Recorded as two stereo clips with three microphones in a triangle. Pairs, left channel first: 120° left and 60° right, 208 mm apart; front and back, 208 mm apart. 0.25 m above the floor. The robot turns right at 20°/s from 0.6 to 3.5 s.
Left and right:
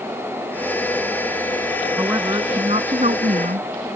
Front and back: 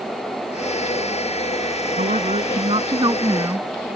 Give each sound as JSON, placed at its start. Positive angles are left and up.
{"t": 2.0, "sound": "a woman speaking", "azimuth_deg": -135}